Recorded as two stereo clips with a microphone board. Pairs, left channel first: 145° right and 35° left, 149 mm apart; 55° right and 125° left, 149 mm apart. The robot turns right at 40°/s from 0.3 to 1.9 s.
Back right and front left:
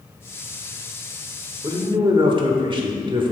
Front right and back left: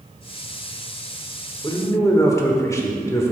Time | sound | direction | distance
1.6 | a man speaking | 10° right | 1.2 m